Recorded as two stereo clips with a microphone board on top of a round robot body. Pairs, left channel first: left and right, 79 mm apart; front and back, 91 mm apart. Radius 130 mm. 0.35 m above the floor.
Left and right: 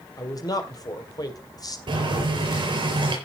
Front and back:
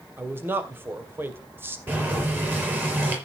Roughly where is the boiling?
Behind right.